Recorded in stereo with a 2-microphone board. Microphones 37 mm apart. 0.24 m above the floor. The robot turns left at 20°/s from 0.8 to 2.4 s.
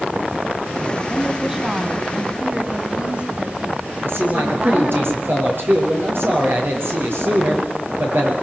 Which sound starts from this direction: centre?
A woman speaking, at 1.1 s.